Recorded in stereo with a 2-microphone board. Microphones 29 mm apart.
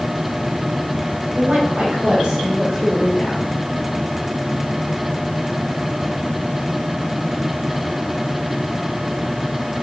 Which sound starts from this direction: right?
A woman speaking, at 1.4 s.